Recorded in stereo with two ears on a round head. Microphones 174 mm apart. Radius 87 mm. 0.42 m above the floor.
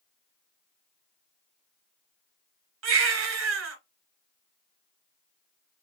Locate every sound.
2.8 s a baby crying: 75° right (ahead or behind), 1.4 m